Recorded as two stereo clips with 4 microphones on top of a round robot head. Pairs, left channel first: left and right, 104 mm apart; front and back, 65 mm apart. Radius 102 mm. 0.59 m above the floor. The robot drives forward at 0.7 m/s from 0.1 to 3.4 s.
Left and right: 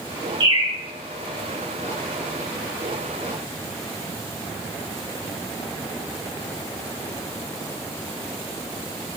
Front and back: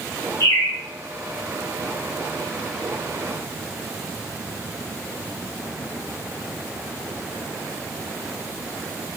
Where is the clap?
I don't hear a clap.